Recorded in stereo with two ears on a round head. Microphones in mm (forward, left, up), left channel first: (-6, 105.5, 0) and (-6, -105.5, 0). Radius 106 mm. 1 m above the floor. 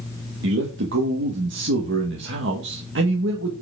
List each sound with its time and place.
0.4 s a man speaking: 50° right (ahead or behind), 1.4 m